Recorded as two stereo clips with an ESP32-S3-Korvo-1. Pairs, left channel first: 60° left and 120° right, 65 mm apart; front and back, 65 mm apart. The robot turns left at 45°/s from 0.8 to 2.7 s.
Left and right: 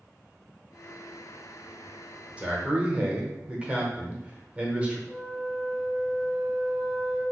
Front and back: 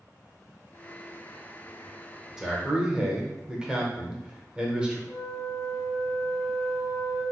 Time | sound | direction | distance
2.4 | a man speaking | 120° right | 0.8 m
5.1 | a flute | 125° left | 1.2 m